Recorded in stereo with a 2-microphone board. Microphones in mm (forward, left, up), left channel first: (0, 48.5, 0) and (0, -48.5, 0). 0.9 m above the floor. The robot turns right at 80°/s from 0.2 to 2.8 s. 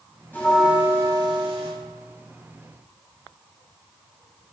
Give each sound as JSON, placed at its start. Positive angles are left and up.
{"t": 0.3, "sound": "a bell", "azimuth_deg": 160, "distance_m": 3.0}